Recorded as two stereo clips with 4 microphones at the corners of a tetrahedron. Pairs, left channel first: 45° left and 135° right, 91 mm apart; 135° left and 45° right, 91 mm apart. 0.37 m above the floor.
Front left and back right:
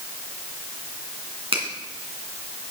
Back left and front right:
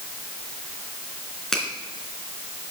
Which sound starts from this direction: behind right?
A finger snap, at 1.5 s.